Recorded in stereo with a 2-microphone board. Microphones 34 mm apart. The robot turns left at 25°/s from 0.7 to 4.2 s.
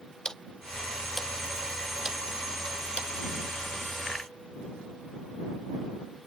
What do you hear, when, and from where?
0.2 s ticking: 15° left (ahead or behind); by 3.1 s 40° right (ahead or behind)